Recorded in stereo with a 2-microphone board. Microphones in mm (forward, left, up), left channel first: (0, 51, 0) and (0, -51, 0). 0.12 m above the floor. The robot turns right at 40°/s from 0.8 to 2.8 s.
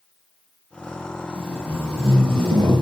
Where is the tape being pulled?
120° right, 3 m; by 2.8 s 60° right, 3 m.